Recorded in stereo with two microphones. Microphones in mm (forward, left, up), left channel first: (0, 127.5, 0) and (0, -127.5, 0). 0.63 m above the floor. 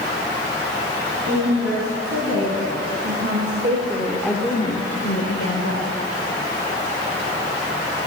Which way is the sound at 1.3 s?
65° right (ahead or behind).